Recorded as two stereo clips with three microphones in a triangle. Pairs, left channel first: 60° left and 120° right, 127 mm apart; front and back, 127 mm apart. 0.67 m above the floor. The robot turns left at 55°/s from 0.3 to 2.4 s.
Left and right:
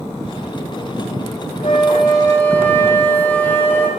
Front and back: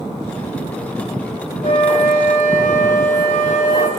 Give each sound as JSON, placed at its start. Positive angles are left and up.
{"t": 1.6, "sound": "a flute", "azimuth_deg": 30, "distance_m": 1.3}